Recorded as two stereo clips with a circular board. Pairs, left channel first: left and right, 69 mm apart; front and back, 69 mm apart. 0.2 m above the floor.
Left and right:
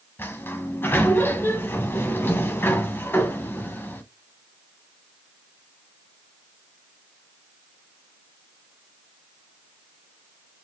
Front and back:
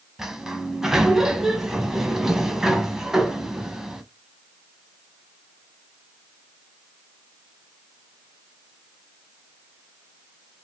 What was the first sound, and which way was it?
A sliding door, 105° left.